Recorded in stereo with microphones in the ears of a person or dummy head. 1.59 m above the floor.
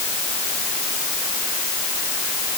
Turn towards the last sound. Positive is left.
No sound to turn to.